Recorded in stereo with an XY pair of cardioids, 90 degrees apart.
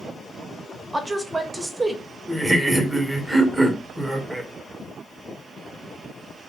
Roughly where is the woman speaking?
Ahead.